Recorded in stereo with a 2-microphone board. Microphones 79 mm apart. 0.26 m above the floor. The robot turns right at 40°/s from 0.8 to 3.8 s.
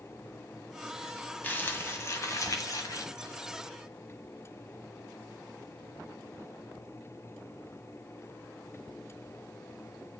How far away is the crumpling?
About 1.1 m.